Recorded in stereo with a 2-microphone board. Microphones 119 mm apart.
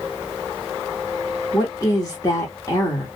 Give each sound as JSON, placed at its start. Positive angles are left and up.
{"t": 1.5, "sound": "a woman speaking", "side_deg": 30, "distance_m": 0.9}